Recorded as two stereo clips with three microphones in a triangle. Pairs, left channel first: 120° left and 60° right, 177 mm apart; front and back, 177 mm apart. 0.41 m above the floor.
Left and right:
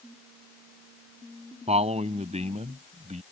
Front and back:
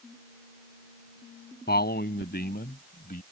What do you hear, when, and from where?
1.7 s a man speaking: 10° right; by 3.2 s 20° right